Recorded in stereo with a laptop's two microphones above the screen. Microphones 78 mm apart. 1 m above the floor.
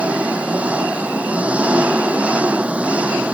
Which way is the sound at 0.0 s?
15° right (ahead or behind).